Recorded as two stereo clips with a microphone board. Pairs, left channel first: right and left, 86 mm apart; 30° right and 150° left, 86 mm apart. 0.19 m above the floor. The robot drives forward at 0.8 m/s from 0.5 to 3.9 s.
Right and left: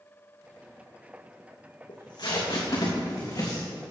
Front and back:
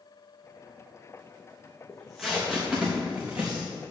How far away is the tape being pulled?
About 2.5 m.